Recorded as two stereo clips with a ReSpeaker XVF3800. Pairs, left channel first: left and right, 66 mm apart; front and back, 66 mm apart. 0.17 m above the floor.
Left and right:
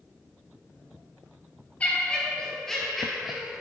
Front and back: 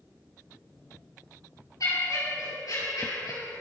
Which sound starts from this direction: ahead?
Laughter, at 1.8 s.